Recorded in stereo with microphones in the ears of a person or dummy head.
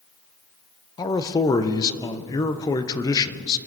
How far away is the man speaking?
About 0.8 m.